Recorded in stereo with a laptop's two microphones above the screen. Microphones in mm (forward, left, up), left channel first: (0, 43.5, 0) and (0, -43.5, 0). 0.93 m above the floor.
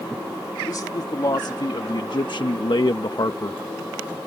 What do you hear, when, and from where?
0.7 s a man speaking: 45° left (ahead or behind); by 3.6 s 40° left (ahead or behind)